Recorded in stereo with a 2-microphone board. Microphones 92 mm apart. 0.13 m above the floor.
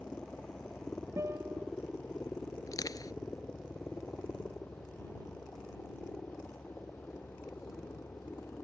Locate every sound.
0.0 s a helicopter: 15° left (ahead or behind); by 8.6 s 25° left (ahead or behind)
1.2 s a guitar: 30° right (ahead or behind)
2.7 s crushing: 45° left (ahead or behind)